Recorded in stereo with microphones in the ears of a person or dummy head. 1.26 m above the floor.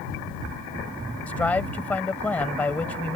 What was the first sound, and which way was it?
A man speaking, 10° left (ahead or behind).